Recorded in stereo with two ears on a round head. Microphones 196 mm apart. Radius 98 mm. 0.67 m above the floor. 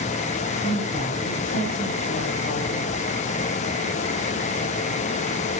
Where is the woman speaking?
45° left (ahead or behind), 4 m.